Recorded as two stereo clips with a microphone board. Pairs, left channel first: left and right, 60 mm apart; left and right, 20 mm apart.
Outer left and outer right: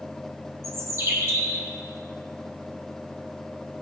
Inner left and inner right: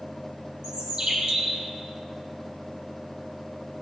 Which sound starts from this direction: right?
A bird, at 0.6 s.